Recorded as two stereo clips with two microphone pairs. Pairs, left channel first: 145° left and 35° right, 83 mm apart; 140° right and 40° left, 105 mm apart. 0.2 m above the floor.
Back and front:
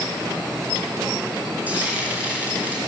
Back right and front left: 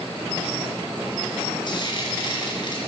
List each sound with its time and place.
1.7 s frying: 105° right, 3 m